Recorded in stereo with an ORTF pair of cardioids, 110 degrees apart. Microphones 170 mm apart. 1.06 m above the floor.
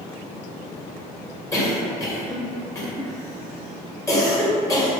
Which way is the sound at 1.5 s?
20° left.